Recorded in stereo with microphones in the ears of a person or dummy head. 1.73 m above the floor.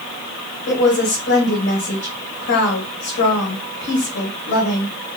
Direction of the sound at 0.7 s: 85° left.